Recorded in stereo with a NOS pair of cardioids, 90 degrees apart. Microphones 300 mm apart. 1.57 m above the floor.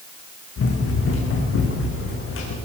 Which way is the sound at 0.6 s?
50° left.